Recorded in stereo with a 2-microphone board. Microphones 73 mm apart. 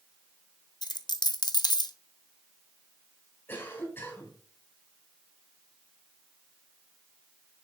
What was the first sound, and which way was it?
A dropped coin, 70° left (ahead or behind).